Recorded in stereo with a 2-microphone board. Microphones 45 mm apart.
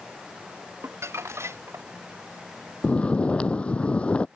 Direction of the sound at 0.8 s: 85° right.